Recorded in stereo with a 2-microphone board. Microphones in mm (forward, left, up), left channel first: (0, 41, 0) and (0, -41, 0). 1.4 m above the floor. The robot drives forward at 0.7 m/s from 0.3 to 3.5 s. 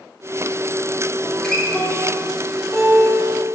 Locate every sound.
1.2 s a guitar: 10° left (ahead or behind), 2.5 m; by 3.5 s 5° left (ahead or behind), 4.5 m